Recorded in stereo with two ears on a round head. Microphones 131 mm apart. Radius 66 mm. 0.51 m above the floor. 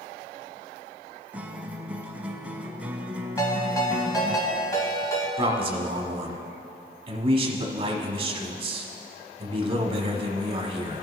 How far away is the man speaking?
About 1.0 m.